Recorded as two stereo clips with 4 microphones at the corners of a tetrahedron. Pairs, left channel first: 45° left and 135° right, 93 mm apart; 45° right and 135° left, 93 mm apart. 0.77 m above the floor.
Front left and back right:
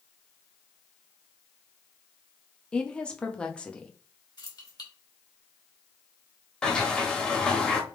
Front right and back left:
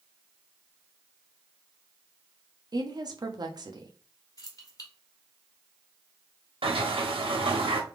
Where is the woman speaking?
120° left, 0.8 m.